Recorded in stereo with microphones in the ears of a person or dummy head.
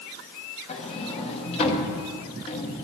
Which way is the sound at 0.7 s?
35° left (ahead or behind).